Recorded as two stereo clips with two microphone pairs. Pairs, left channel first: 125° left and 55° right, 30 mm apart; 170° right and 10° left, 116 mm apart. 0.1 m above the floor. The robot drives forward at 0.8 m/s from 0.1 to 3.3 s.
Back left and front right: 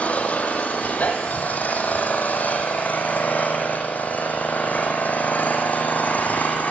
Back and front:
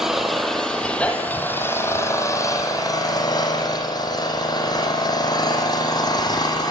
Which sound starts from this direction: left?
An engine running, at 0.0 s.